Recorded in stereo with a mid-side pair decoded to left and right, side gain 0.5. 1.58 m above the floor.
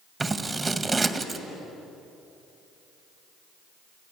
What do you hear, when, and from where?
0.2 s scissors: 25° right, 1.8 m